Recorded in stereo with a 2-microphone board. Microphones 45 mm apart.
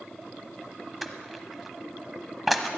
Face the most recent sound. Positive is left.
turn(degrees=0)  # may be behind; listen again after turning